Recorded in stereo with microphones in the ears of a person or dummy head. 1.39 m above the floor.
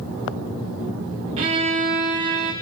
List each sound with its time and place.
1.4 s a violin: 30° right (ahead or behind), 1.2 m